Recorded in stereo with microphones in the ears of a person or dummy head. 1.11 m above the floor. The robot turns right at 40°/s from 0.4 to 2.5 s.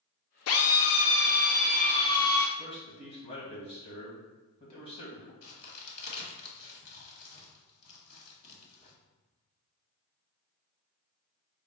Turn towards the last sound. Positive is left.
turn(degrees=55)  # may be behind; listen again after turning